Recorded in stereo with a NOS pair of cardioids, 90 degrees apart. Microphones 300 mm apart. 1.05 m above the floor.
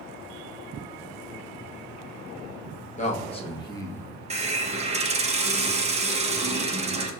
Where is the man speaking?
25° left, 1.4 m; by 4.1 s 5° left, 0.9 m.